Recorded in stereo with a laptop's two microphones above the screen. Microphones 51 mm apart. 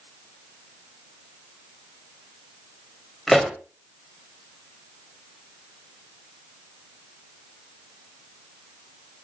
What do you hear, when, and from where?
3.3 s a pop: 5° left (ahead or behind), 2 m